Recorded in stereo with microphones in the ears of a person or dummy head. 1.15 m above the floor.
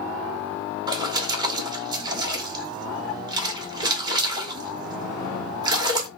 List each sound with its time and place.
0.9 s a splash: 30° right (ahead or behind), 1.1 m